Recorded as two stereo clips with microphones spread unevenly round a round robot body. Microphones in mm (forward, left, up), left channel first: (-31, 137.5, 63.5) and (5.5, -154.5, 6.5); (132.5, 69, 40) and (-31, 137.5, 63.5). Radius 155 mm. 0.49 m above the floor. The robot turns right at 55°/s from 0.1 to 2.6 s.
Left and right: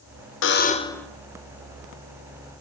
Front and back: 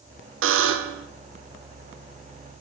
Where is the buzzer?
150° left, 0.7 m; by 1.1 s 170° right, 0.7 m.